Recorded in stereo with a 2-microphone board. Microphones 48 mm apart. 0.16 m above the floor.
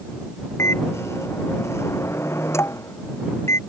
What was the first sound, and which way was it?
A microwave, 75° left (ahead or behind).